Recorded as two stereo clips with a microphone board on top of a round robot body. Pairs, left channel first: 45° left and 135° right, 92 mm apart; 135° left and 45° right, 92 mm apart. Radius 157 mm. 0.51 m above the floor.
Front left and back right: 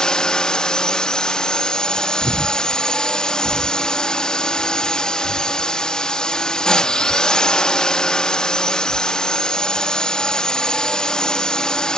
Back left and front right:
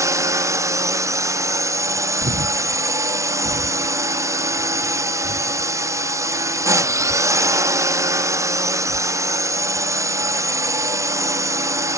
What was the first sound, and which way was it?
A drone, 30° right.